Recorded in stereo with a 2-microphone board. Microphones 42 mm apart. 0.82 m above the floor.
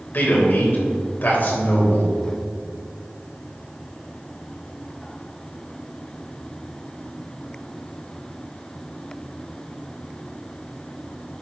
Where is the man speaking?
50° left (ahead or behind), 3.5 m.